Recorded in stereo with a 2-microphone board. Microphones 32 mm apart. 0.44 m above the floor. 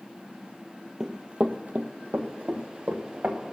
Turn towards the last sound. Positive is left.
turn(degrees=-70)  # may be behind; listen again after turning